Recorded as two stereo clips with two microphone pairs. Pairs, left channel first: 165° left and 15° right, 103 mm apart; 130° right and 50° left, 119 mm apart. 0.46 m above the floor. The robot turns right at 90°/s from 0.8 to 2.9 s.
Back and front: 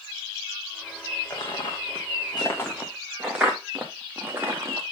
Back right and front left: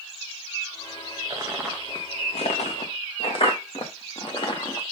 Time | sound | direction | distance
1.3 | footsteps | 105° left | 3.5 m